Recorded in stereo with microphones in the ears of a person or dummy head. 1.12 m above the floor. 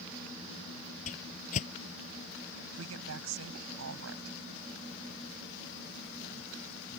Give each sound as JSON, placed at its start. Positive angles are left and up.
{"t": 1.1, "sound": "a whoosh", "side_deg": 45}
{"t": 2.7, "sound": "a woman speaking", "side_deg": -75}